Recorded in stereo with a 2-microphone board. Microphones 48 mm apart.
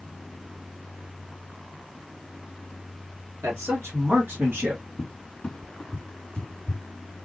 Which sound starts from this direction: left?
A cupboard door, at 5.0 s.